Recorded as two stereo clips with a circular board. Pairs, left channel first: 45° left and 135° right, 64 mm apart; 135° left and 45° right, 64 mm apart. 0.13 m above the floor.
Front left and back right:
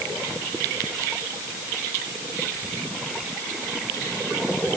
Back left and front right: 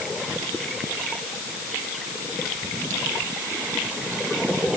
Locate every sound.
Only background noise.